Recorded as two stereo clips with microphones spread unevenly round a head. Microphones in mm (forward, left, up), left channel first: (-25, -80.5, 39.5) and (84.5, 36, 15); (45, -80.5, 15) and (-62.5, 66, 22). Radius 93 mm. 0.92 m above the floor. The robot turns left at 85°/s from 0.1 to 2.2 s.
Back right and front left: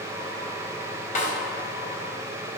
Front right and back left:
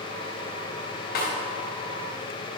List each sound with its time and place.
1.1 s a snare drum: 95° right, 3.5 m; by 1.3 s 110° right, 3.5 m